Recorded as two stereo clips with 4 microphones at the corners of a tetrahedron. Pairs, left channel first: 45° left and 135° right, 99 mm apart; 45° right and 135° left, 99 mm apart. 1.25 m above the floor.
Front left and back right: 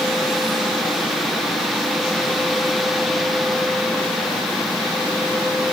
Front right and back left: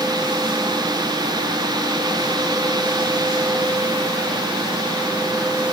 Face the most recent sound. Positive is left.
No sound to turn to.